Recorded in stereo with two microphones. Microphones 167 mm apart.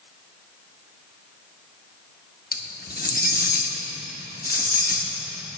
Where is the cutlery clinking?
65° left (ahead or behind), 0.8 m.